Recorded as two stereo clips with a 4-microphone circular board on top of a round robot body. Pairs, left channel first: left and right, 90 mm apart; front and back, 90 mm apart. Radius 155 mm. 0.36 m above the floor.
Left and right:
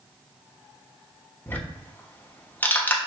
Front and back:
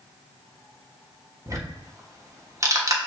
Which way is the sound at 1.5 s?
150° left.